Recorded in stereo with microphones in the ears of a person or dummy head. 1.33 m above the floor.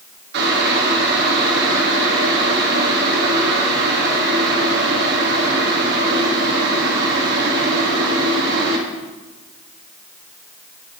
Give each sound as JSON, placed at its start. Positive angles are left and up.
{"t": 0.3, "sound": "boiling", "side_deg": -60, "distance_m": 2.0}